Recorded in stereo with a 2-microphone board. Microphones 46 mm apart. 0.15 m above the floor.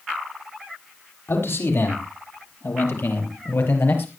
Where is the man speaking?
70° left (ahead or behind), 6 m; by 4.1 s 60° left (ahead or behind), 4.5 m.